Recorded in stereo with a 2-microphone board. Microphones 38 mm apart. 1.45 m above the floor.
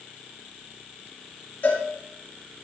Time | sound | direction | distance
1.6 | a cowbell | 65° left (ahead or behind) | 8 m